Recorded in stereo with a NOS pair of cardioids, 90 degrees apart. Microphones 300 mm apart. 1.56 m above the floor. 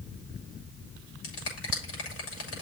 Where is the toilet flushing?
I don't hear a toilet flushing.